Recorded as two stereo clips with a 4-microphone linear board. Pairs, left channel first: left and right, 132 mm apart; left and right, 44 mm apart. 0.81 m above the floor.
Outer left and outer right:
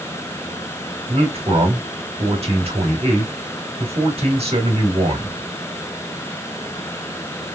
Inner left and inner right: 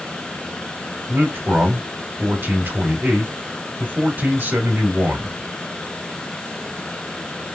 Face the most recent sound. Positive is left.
turn(degrees=-50)  # may be behind; listen again after turning